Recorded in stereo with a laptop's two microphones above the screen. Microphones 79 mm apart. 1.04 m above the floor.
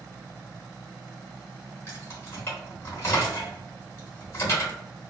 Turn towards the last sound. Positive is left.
turn(degrees=35)  # may be behind; listen again after turning